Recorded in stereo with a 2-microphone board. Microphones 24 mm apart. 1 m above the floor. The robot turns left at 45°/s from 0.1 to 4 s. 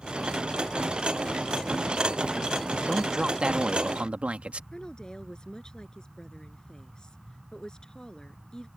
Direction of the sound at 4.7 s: 35° left (ahead or behind).